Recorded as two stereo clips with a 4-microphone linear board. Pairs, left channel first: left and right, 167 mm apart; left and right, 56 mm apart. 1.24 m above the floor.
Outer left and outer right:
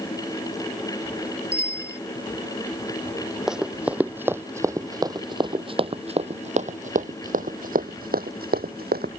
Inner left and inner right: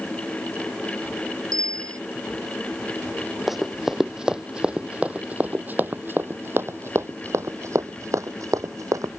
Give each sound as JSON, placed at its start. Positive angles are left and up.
{"t": 1.5, "sound": "a bicycle bell", "side_deg": -75}
{"t": 3.5, "sound": "running footsteps", "side_deg": -5}